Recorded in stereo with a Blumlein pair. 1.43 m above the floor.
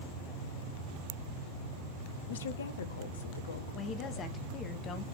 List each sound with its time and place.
2.3 s a woman speaking: 60° left, 0.9 m
3.7 s a woman speaking: 25° left, 1.4 m